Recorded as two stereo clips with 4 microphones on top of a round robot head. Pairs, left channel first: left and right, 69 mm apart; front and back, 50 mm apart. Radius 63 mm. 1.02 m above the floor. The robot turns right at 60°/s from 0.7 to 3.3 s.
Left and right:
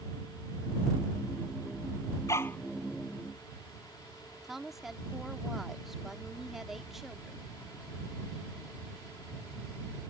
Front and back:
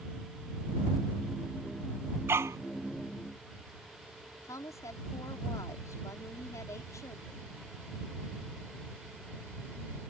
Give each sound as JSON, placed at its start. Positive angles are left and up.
{"t": 2.3, "sound": "a dog barking", "azimuth_deg": 145}
{"t": 4.4, "sound": "a woman speaking", "azimuth_deg": -5}